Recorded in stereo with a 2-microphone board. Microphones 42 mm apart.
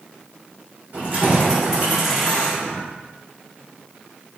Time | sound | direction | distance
0.9 | keys jangling | 45° right (ahead or behind) | 1.0 m